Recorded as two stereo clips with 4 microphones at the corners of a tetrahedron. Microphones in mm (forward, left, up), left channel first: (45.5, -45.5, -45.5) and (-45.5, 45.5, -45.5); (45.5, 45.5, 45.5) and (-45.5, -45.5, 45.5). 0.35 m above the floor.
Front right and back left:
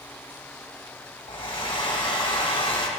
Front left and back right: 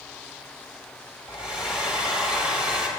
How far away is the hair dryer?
About 1.6 m.